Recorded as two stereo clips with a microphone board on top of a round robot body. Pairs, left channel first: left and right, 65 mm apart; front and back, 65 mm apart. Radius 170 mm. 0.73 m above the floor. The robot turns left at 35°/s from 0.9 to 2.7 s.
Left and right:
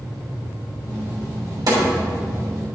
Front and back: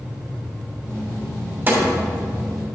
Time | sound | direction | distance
1.7 | a snare drum | 120° right | 2.5 m